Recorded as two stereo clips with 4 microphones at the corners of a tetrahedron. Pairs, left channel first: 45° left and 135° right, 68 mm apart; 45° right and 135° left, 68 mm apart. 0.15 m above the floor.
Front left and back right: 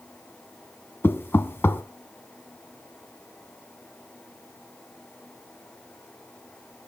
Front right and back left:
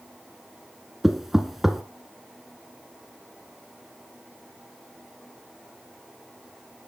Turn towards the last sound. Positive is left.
turn(degrees=50)